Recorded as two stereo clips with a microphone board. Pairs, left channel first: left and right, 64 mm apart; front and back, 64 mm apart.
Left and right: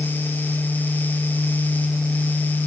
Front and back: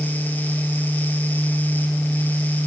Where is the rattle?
No rattle in this recording.